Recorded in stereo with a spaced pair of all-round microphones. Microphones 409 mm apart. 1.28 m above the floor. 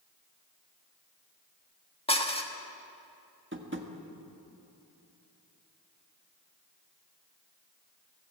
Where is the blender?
No blender in this recording.